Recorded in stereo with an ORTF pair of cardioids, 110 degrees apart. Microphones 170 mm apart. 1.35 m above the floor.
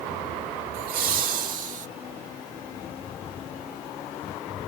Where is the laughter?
65° right, 3 m; by 1.9 s 50° right, 1.4 m.